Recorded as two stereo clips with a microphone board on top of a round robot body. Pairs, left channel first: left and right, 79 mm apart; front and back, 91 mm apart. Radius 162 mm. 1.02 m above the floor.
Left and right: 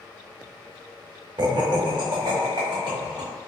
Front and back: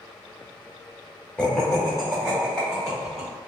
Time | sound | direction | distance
1.4 | laughter | 80° right | 0.7 m